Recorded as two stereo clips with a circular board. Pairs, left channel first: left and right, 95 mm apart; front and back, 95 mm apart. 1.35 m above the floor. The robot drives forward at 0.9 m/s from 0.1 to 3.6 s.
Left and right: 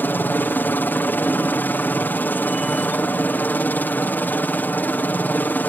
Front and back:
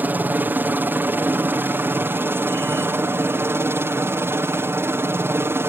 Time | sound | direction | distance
0.0 | a helicopter | 135° left | ?